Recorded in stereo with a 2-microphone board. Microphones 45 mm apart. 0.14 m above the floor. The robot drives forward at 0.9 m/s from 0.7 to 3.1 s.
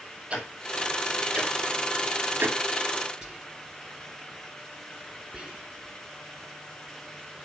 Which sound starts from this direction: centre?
Whispering, at 3.2 s.